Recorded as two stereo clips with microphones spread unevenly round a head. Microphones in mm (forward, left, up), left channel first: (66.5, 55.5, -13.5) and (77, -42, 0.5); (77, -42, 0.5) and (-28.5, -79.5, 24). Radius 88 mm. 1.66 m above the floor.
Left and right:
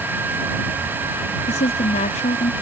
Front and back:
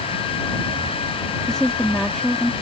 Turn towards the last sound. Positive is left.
turn(degrees=110)